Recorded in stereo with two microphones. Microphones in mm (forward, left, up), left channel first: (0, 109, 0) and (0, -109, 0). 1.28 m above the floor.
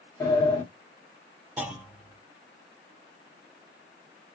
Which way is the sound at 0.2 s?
15° left (ahead or behind).